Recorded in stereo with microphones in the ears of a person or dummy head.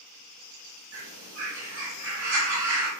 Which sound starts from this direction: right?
A bird, at 0.9 s.